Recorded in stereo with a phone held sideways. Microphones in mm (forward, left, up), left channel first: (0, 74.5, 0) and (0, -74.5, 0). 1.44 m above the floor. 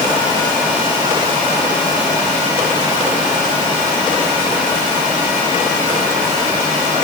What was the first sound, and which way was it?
Only background noise.